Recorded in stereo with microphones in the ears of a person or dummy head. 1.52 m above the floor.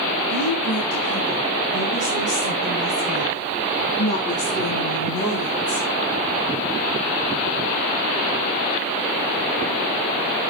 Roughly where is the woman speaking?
Centre.